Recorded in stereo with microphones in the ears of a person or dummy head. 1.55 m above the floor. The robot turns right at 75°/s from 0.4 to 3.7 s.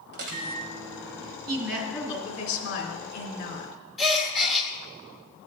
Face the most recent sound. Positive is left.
turn(degrees=0)  # may be behind; listen again after turning